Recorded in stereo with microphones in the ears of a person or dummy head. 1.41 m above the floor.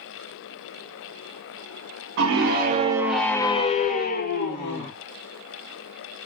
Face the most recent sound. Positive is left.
turn(degrees=60)  # may be behind; listen again after turning